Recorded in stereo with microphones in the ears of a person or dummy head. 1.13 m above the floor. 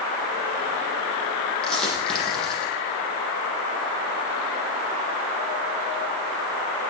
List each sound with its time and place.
1.6 s a dropped coin: centre (ahead or behind), 7.5 m